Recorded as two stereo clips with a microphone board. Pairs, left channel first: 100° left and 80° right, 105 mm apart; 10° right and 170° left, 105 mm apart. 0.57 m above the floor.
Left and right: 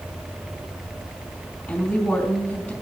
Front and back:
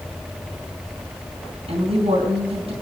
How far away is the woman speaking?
About 3.5 m.